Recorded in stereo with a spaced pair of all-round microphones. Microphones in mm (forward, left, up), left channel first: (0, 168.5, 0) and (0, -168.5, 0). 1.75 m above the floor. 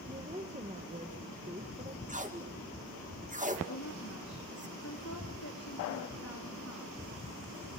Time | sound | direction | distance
0.1 | a woman speaking | 20° right (ahead or behind) | 1.7 m
2.1 | tape being pulled | 20° right (ahead or behind) | 2.5 m
3.7 | a woman speaking | 45° left (ahead or behind) | 3.5 m